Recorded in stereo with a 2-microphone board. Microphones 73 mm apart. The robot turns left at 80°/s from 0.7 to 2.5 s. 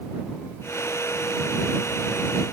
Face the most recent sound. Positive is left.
No sound to turn to.